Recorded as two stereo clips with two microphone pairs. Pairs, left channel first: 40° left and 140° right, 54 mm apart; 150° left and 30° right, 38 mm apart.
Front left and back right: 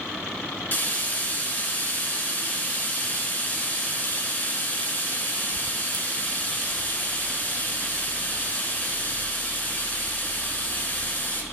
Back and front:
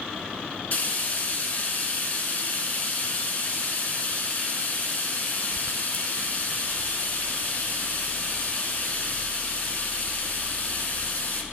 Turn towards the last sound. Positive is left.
turn(degrees=100)